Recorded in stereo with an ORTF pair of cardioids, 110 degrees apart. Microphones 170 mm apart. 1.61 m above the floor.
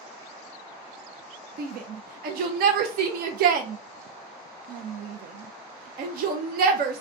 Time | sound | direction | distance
1.6 | a shout | 65° right | 0.8 m